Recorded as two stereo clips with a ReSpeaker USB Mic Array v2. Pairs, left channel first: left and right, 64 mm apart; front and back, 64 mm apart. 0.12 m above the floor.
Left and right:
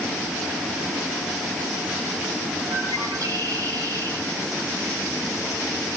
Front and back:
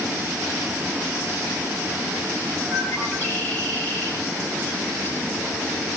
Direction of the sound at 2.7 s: 55° right.